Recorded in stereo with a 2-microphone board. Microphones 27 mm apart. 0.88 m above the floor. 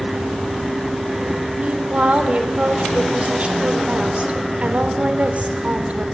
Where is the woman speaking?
50° right (ahead or behind), 3.5 m.